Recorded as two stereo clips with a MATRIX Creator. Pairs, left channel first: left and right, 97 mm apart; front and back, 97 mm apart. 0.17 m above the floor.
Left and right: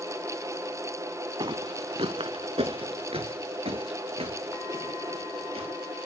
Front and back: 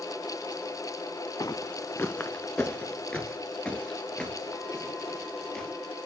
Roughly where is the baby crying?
No baby crying in this recording.